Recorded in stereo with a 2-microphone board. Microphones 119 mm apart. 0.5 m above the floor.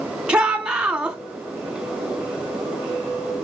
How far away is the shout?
About 1.4 m.